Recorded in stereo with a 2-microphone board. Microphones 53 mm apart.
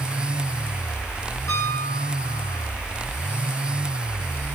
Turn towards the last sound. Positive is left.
turn(degrees=70)  # may be behind; listen again after turning